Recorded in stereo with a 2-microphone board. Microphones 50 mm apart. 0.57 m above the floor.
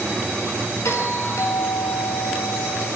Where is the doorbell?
75° left (ahead or behind), 9.5 m.